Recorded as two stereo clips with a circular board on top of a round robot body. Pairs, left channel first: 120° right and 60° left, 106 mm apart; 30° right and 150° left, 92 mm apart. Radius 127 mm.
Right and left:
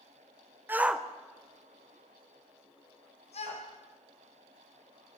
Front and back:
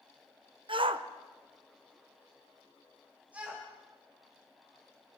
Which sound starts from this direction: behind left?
A shout, at 0.7 s.